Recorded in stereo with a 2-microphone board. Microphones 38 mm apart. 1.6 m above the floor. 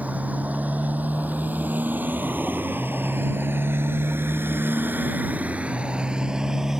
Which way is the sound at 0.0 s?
45° right (ahead or behind).